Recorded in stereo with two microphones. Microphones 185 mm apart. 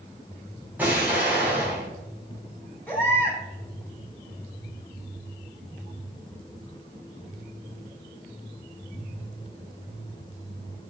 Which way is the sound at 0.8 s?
10° right (ahead or behind).